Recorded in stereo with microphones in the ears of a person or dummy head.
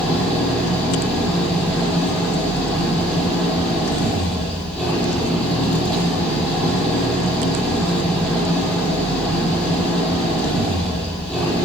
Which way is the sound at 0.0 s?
Centre (ahead or behind).